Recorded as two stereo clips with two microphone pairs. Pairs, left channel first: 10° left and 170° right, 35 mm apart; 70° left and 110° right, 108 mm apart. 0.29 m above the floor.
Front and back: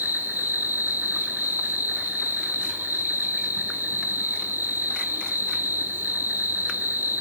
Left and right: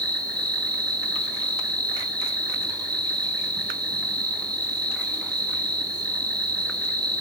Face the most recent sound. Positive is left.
turn(degrees=-160)